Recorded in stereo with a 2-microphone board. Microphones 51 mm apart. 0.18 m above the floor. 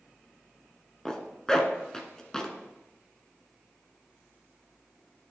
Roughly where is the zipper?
Centre.